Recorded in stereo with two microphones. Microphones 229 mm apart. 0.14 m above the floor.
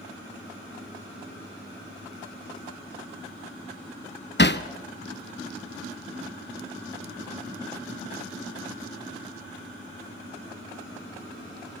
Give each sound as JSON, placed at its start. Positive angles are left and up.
{"t": 4.4, "sound": "hammering", "side_deg": 50, "distance_m": 1.0}